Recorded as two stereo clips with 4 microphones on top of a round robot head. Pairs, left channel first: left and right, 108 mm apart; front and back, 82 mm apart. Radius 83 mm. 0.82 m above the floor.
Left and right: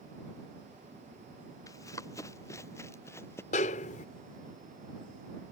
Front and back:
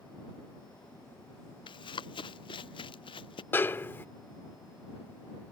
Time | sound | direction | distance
1.7 | running footsteps | 20° left | ?
3.5 | a snare drum | 65° left | ?